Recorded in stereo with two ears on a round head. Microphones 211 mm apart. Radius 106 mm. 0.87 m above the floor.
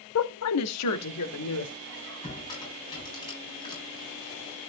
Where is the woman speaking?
60° left (ahead or behind), 0.8 m; by 1.8 s 80° left, 2.5 m.